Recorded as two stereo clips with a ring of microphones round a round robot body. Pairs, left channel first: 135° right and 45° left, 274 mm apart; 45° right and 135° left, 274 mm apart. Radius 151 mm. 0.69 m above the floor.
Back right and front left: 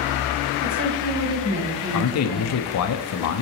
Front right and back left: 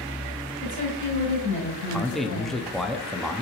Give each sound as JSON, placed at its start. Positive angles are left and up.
{"t": 0.6, "sound": "a woman speaking", "azimuth_deg": 5, "distance_m": 4.0}
{"t": 1.9, "sound": "a man speaking", "azimuth_deg": -135, "distance_m": 0.8}